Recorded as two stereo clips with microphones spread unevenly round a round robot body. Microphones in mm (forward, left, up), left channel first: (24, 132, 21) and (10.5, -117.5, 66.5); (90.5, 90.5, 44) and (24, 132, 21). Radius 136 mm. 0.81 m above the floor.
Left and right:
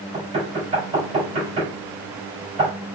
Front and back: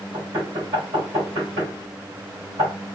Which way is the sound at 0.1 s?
160° right.